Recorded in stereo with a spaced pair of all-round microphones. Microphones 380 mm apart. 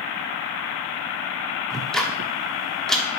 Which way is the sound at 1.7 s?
Centre (ahead or behind).